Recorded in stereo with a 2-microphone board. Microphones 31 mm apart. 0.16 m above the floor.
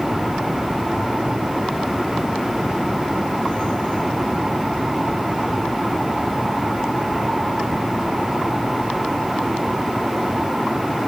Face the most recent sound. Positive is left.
No sound to turn to.